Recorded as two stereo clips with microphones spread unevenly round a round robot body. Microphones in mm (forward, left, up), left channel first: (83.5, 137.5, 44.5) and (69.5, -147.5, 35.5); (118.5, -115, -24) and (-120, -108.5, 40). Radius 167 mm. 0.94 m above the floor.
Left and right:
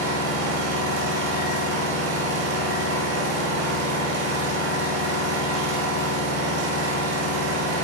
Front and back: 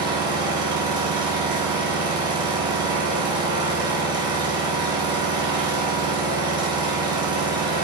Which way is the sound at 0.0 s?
105° right.